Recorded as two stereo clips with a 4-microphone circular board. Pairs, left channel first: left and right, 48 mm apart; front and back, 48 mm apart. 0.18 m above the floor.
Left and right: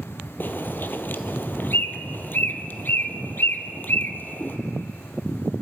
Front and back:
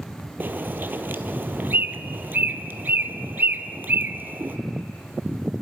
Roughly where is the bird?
Behind left.